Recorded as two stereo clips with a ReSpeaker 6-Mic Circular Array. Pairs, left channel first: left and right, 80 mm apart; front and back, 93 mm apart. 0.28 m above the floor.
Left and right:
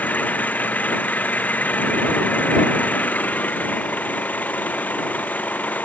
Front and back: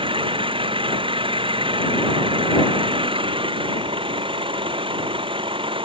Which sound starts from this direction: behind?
An engine running, at 0.0 s.